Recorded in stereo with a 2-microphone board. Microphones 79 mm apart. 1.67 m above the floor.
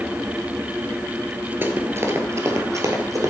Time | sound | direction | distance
1.6 | running footsteps | 30° right (ahead or behind) | 1.8 m